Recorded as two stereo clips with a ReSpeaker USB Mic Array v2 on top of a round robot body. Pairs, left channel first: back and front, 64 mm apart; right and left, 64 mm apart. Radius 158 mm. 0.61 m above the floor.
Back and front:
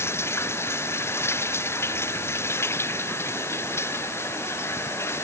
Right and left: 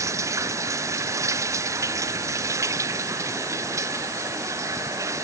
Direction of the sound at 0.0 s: 130° left.